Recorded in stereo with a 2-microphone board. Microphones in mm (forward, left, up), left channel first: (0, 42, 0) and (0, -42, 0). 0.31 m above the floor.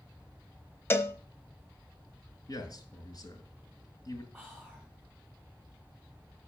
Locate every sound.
0.9 s a cowbell: 25° left (ahead or behind), 0.6 m
2.5 s a man speaking: 55° left (ahead or behind), 2.5 m
4.3 s whispering: 5° left (ahead or behind), 2.5 m